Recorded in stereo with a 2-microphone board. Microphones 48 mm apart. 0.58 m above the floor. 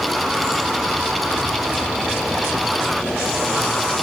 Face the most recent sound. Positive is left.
No sound to turn to.